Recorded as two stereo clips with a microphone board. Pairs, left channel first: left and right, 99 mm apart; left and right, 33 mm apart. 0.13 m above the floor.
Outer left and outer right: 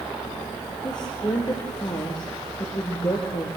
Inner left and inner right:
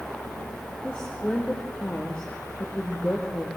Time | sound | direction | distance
0.8 | a woman speaking | 45° left (ahead or behind) | 3 m